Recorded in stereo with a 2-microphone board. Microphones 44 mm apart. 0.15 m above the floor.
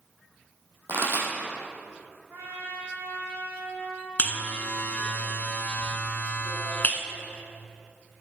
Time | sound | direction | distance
0.9 | a pop | 65° right (ahead or behind) | 3 m
2.3 | a trumpet | 60° right (ahead or behind) | 4 m
4.2 | a buzzer | 40° left (ahead or behind) | 0.9 m